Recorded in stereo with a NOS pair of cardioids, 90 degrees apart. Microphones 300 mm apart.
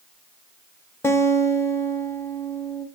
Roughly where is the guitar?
Ahead.